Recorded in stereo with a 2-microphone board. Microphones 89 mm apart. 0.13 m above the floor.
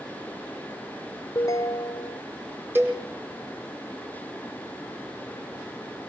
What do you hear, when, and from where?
1.4 s a ringtone: 40° left (ahead or behind), 0.6 m
2.8 s a cowbell: 25° right (ahead or behind), 3.5 m